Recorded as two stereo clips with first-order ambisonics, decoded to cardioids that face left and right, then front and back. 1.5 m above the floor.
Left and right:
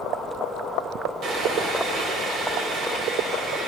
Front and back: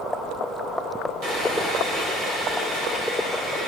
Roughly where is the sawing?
Behind right.